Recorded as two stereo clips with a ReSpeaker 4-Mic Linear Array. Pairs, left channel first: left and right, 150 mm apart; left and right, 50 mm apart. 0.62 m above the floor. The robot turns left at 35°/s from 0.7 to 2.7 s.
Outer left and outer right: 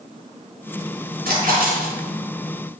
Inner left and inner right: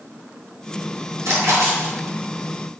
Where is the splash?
85° right, 4.5 m; by 1.9 s 65° right (ahead or behind), 4.5 m.